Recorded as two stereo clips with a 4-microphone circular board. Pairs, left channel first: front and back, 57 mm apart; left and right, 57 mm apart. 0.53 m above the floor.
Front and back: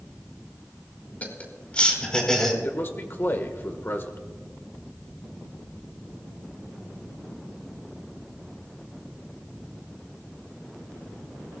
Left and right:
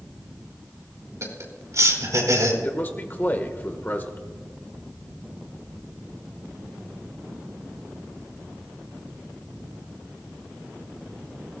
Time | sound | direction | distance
1.2 | laughter | 60° right | 4 m
2.6 | a man speaking | 40° left | 1.5 m